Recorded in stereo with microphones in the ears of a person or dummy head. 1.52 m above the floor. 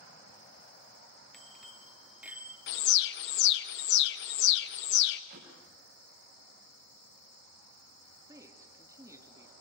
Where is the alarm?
65° left (ahead or behind), 1.3 m.